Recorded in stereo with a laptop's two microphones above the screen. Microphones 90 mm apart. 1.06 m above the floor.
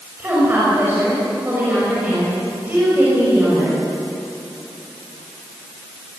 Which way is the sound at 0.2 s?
20° right (ahead or behind).